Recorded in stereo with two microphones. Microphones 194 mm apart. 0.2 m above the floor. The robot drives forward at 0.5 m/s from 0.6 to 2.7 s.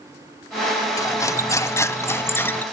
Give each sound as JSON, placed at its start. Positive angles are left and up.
{"t": 1.0, "sound": "cutlery clinking", "side_deg": 15, "distance_m": 0.7}